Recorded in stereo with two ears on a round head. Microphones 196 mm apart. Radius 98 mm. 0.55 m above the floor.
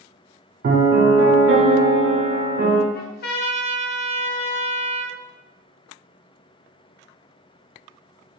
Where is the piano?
45° right (ahead or behind), 0.7 m.